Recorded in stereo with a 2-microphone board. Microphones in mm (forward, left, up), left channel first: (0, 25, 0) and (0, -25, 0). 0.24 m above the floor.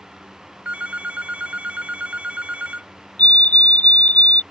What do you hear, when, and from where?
0.7 s a phone ringing: 30° right (ahead or behind)
3.2 s a fire alarm: 30° left (ahead or behind)